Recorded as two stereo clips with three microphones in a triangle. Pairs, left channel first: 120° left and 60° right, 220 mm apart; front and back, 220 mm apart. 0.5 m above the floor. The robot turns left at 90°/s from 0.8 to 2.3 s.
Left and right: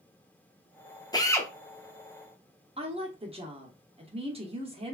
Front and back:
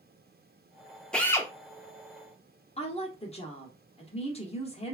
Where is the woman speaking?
25° right, 0.7 m.